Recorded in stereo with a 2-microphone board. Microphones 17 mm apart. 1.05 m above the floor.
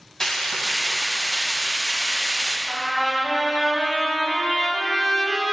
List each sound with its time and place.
0.2 s frying: 20° left (ahead or behind), 2.5 m
2.7 s a trumpet: 30° left (ahead or behind), 3.5 m